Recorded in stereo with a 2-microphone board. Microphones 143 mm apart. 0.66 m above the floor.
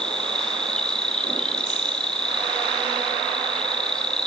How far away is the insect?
About 3 m.